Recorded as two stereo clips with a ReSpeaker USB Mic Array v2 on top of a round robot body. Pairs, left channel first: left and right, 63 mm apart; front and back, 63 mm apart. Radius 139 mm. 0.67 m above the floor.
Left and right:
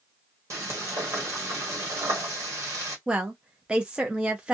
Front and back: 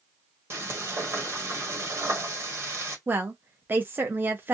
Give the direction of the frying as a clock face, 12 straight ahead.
4 o'clock.